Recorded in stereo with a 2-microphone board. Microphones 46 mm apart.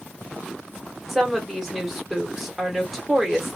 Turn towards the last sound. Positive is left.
turn(degrees=0)  # may be behind; listen again after turning